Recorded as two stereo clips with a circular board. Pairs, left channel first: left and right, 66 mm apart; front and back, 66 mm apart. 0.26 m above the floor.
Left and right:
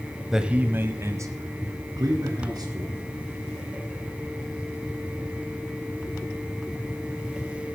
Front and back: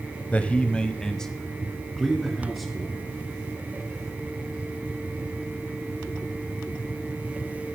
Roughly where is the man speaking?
Ahead.